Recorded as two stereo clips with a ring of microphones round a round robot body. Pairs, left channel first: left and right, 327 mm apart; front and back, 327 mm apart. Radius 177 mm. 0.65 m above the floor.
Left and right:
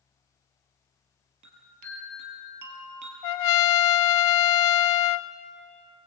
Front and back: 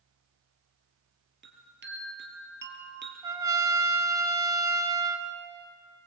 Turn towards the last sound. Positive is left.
turn(degrees=100)